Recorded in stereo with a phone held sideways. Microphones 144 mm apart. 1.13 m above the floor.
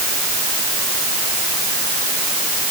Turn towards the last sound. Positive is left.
No sound to turn to.